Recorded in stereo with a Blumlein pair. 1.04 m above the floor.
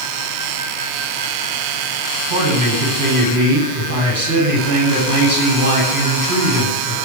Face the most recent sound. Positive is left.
turn(degrees=-70)